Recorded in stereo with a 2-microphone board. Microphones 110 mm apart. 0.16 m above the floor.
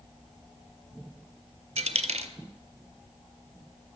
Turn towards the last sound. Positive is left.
turn(degrees=-80)